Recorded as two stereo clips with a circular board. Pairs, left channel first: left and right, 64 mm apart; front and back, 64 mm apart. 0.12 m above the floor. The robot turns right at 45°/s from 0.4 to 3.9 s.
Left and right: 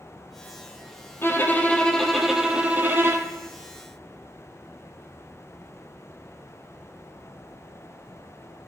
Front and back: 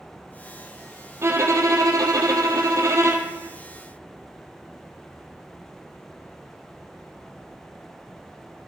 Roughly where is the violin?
Behind left.